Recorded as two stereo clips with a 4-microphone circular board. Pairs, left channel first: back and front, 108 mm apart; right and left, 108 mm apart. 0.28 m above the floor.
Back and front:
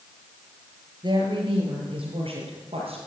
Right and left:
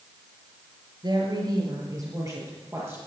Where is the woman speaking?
40° left, 5 m; by 3.0 s 25° left, 6.5 m.